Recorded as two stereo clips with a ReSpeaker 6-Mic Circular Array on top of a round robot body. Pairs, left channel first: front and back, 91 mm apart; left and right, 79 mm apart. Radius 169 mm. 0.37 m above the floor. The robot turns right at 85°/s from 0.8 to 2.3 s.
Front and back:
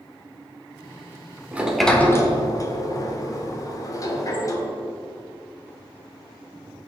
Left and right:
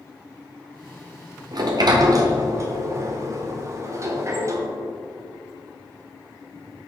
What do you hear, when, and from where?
1.5 s a sliding door: 110° right, 1.3 m; by 4.7 s 45° right, 1.3 m